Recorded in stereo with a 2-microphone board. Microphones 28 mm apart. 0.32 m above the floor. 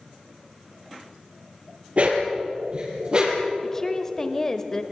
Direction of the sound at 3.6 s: 20° left (ahead or behind).